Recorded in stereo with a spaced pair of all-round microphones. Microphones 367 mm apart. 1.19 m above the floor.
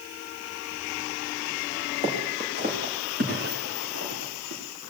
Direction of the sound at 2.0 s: 15° right (ahead or behind).